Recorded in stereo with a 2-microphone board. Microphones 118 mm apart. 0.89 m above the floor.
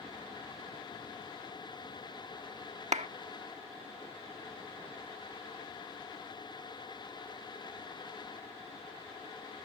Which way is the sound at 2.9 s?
75° right (ahead or behind).